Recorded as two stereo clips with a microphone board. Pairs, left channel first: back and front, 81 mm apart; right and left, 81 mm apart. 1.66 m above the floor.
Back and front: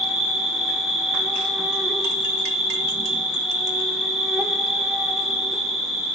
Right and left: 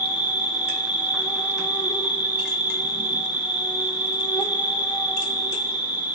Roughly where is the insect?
Right.